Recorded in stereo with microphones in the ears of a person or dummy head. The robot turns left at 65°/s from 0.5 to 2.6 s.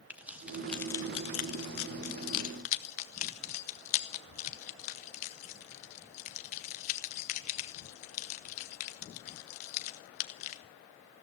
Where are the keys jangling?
5° right (ahead or behind), 0.8 m; by 10.6 s 40° left (ahead or behind), 0.8 m.